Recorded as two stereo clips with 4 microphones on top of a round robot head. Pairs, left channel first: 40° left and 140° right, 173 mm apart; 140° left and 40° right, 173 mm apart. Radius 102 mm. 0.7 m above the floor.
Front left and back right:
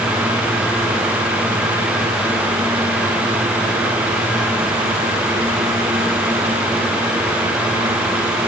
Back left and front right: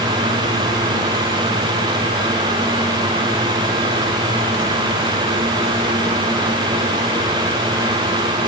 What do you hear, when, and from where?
Only background noise.